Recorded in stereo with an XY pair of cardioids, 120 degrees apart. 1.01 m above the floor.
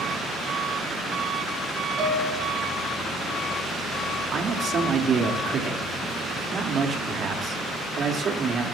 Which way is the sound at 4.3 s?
40° right.